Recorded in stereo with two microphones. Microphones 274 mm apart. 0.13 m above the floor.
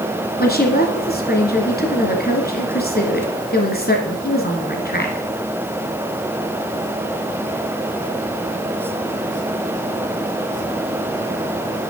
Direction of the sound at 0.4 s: 35° left (ahead or behind).